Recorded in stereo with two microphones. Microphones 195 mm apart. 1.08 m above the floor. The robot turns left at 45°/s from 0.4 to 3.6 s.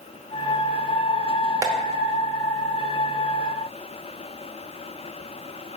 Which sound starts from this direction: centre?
Tapping, at 1.6 s.